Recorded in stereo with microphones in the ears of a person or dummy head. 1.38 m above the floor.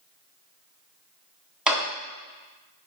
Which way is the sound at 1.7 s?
5° right (ahead or behind).